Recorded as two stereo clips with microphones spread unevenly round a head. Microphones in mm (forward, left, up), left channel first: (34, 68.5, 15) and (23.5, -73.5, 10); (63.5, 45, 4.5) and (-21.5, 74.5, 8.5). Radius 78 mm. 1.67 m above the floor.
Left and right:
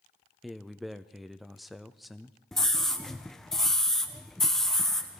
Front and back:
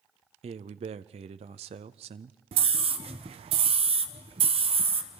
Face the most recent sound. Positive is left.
turn(degrees=170)